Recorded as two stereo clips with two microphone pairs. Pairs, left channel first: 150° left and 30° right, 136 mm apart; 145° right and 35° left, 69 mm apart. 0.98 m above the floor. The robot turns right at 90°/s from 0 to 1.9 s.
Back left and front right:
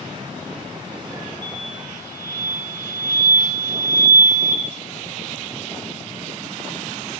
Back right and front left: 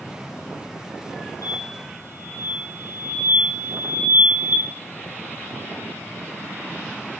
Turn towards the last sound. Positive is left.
turn(degrees=-145)